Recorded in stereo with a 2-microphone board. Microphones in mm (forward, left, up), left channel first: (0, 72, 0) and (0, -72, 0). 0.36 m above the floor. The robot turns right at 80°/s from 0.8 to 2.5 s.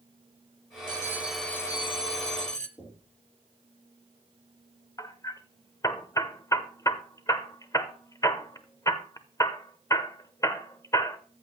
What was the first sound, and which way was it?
A bell, 40° right.